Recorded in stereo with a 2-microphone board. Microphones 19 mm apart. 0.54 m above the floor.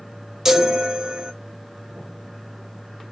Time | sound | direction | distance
0.5 | a chime | 30° right (ahead or behind) | 0.5 m